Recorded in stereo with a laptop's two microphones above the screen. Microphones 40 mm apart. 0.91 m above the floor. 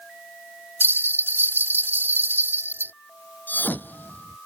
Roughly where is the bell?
Right.